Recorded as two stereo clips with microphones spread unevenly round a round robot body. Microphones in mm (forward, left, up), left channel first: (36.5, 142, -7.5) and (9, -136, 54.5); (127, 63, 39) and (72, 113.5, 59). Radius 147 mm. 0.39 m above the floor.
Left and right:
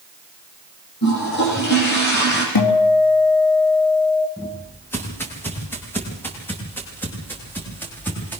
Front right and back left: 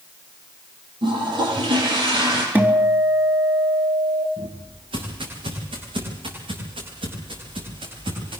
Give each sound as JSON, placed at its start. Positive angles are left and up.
{"t": 1.0, "sound": "a toilet flushing", "azimuth_deg": 140, "distance_m": 10.0}
{"t": 2.5, "sound": "a guitar", "azimuth_deg": 70, "distance_m": 4.0}
{"t": 4.4, "sound": "footsteps", "azimuth_deg": 170, "distance_m": 6.0}